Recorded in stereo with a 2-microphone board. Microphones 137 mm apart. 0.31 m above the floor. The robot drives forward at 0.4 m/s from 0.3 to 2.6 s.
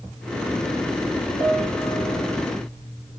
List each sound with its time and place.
1.4 s a piano: 75° left (ahead or behind), 7 m